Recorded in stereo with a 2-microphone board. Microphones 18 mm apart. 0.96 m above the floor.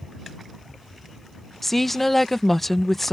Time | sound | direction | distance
1.6 | a woman speaking | 15° left (ahead or behind) | ?